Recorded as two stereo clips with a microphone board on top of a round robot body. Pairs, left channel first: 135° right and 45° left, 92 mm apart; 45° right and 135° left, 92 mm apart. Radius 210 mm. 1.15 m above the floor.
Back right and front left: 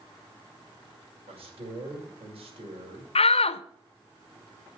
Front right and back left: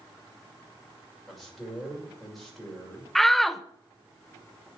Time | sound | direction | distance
1.3 | a man speaking | 45° left | 6 m
3.1 | a shout | 130° right | 0.8 m